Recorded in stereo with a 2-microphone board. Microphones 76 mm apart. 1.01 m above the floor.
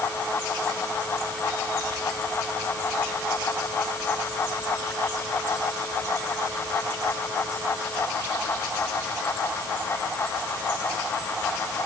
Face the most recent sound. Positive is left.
No sound to turn to.